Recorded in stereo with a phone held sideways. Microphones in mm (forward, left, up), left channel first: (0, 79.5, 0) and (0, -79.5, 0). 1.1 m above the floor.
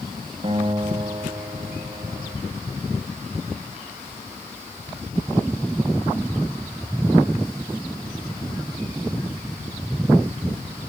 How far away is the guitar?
About 2 m.